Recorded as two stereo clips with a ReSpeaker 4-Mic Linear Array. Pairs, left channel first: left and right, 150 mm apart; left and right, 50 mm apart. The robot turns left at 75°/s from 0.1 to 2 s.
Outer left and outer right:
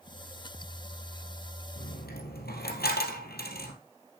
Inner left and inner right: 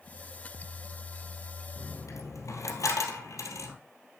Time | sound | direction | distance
1.8 | a dropped coin | 80° left | 2 m